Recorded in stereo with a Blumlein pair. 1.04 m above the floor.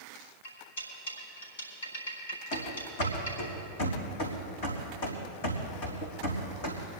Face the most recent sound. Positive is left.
turn(degrees=55)